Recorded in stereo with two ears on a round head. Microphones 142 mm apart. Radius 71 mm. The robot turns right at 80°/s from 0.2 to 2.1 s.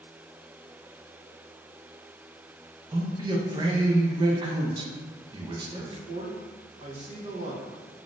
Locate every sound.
2.9 s a man speaking: 25° right (ahead or behind), 0.5 m
5.7 s a man speaking: 40° right (ahead or behind), 0.7 m